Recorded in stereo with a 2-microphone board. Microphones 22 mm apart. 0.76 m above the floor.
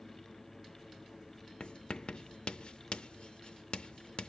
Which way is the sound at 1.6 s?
55° left (ahead or behind).